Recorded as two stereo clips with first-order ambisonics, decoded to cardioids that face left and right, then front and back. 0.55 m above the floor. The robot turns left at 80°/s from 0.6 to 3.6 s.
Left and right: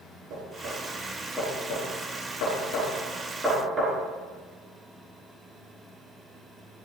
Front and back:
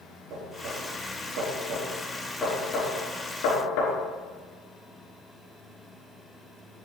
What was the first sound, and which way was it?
Knocking, 130° right.